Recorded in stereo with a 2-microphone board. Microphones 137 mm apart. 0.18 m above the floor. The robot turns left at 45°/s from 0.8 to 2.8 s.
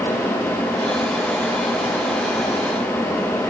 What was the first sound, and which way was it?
Only background noise.